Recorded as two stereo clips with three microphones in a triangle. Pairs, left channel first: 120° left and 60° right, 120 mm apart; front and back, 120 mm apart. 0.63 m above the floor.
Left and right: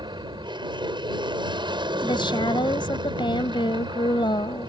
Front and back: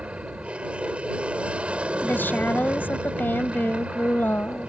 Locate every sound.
0.0 s an aircraft: 100° right
2.0 s a woman speaking: 75° left